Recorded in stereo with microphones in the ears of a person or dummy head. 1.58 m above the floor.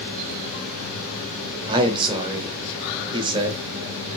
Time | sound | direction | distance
1.7 | a man speaking | 30° right (ahead or behind) | 0.8 m